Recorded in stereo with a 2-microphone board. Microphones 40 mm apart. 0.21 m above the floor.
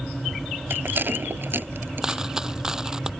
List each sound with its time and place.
0.7 s a rattle: 55° right (ahead or behind)
2.0 s a dropped coin: 15° right (ahead or behind)